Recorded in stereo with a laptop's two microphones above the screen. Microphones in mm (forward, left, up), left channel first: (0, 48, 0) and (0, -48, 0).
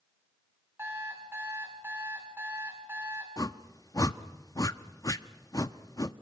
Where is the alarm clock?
25° right (ahead or behind), 5.5 m.